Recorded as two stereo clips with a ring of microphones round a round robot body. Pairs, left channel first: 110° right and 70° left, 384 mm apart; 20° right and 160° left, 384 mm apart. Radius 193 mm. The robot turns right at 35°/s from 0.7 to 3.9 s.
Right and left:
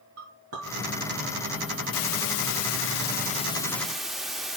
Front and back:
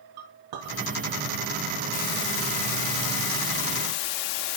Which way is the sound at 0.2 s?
125° left.